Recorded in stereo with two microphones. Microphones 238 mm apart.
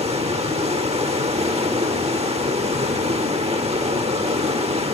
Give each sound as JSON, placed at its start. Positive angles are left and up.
{"t": 0.0, "sound": "running water", "side_deg": -25, "distance_m": 1.0}